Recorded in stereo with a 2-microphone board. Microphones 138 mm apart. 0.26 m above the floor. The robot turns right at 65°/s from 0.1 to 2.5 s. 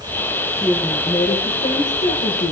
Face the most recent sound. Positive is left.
turn(degrees=105)